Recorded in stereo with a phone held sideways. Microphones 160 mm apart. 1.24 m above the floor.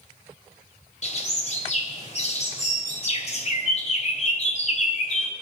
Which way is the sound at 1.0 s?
45° left (ahead or behind).